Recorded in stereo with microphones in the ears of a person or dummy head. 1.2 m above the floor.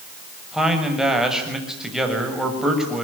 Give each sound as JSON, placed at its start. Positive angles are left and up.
{"t": 0.5, "sound": "a man speaking", "side_deg": -5, "distance_m": 7.0}